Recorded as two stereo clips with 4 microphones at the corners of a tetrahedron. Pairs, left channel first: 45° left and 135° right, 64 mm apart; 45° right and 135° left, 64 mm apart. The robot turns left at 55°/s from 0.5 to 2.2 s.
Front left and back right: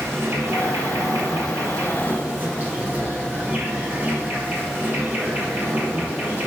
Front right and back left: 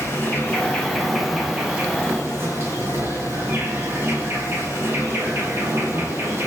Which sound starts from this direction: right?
An insect, at 0.0 s.